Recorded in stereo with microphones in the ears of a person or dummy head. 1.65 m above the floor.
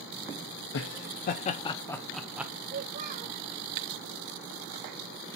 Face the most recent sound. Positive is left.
turn(degrees=-45)  # may be behind; listen again after turning